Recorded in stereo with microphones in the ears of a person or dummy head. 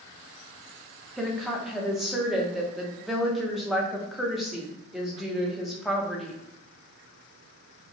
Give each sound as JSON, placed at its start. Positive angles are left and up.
{"t": 1.2, "sound": "a woman speaking", "side_deg": 5, "distance_m": 0.6}